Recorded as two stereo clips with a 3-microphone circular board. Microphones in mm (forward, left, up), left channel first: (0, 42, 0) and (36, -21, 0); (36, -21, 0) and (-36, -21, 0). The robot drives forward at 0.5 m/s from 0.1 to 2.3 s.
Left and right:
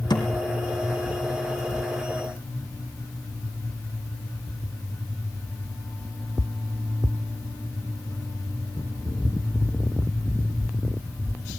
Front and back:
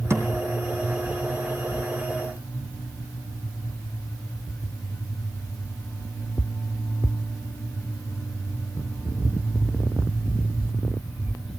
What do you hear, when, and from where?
0.1 s a thud: 130° left, 3 m